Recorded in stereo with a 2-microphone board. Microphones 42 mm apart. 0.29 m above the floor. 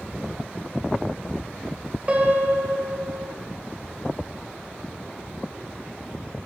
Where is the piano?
30° right (ahead or behind), 0.6 m.